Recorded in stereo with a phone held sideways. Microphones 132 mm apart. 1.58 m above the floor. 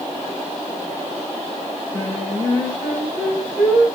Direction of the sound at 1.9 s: Centre (ahead or behind).